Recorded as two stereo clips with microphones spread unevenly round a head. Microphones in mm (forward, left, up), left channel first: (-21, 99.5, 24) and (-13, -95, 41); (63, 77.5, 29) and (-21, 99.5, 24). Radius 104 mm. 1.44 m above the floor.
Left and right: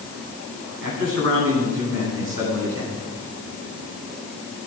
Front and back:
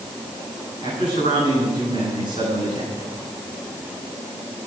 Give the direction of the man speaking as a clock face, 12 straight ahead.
2 o'clock.